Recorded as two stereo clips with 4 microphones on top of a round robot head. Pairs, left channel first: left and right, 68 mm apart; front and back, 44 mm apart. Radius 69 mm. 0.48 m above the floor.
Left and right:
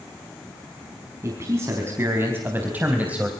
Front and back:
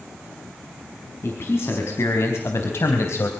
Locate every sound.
1.2 s a man speaking: 35° right, 5 m; by 3.3 s 15° right, 3 m